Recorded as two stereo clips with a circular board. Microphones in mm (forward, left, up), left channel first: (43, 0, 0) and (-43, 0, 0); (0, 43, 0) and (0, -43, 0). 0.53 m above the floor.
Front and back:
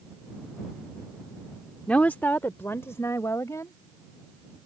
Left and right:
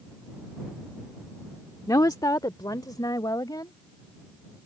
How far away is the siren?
No siren in this recording.